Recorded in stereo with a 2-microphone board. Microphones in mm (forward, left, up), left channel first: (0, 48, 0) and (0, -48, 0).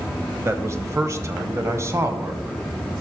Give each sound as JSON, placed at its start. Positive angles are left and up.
{"t": 0.5, "sound": "a man speaking", "side_deg": -30, "distance_m": 1.1}